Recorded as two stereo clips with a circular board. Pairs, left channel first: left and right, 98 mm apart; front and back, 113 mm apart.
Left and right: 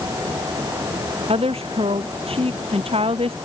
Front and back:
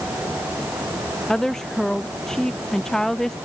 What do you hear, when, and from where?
1.3 s a woman speaking: 85° right